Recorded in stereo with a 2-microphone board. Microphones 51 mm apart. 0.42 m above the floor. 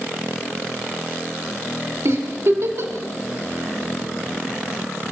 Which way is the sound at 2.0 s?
70° right (ahead or behind).